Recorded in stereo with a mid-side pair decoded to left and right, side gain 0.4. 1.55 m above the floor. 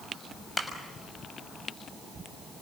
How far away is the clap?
About 6.5 m.